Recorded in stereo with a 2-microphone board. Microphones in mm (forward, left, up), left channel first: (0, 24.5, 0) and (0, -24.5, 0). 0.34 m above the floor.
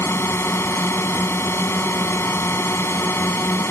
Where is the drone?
65° left (ahead or behind).